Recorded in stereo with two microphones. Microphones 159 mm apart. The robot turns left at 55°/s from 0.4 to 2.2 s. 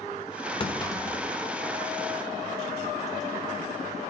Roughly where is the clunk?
Left.